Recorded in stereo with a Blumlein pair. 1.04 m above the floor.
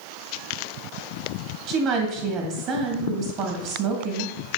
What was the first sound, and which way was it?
A woman speaking, 40° right.